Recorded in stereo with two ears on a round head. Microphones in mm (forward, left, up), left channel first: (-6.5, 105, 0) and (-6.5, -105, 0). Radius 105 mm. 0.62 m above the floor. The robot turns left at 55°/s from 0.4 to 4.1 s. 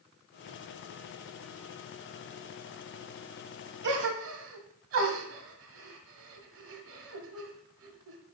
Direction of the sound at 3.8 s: 50° right (ahead or behind).